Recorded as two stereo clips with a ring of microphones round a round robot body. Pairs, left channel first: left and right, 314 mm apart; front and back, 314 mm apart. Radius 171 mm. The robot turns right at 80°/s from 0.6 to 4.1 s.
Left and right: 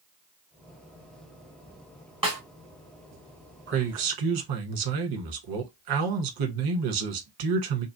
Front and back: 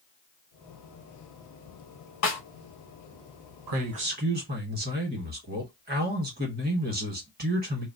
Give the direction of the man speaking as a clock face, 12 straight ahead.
5 o'clock.